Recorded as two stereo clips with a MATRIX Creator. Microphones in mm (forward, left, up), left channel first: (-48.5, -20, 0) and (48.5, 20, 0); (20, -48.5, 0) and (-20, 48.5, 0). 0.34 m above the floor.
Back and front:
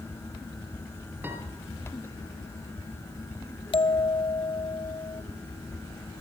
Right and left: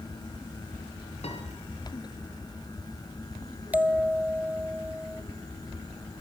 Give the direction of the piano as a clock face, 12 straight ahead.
2 o'clock.